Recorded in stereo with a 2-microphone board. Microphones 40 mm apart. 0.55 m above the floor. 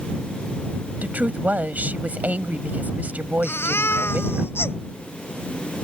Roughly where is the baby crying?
Left.